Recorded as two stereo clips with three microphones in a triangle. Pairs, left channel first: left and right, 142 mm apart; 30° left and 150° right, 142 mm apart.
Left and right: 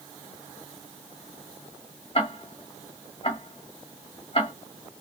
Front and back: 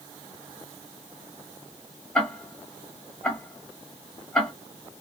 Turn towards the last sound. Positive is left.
turn(degrees=115)